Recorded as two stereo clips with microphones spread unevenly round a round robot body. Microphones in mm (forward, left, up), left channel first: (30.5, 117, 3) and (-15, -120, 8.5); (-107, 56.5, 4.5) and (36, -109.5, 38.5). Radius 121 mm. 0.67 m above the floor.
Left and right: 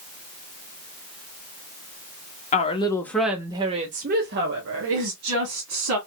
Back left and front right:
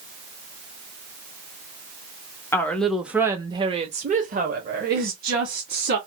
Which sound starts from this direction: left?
A woman speaking, at 2.5 s.